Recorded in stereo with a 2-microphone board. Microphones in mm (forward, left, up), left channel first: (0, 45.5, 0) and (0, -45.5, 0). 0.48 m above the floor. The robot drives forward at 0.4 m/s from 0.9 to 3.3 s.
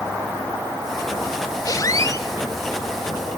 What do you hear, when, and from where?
1.6 s a squeak: 45° left (ahead or behind), 0.8 m; by 2.3 s 35° left (ahead or behind), 1.0 m